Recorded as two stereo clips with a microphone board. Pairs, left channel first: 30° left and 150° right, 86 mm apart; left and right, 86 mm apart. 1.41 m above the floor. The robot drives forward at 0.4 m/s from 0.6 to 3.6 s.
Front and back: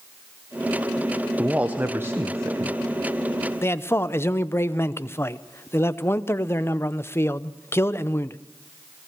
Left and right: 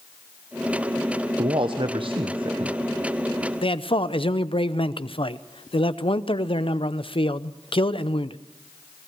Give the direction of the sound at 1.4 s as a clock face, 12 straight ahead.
2 o'clock.